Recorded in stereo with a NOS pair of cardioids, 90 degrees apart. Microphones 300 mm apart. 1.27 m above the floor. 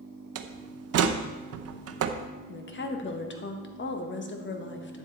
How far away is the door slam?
About 0.8 m.